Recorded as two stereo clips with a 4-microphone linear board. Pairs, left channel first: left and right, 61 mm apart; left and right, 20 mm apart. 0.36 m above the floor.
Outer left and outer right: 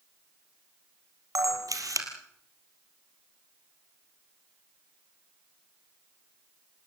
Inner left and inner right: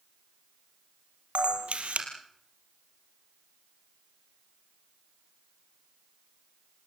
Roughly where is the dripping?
No dripping in this recording.